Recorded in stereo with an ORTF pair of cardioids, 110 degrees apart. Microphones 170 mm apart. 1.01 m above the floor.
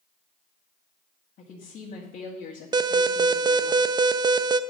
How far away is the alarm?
About 0.5 m.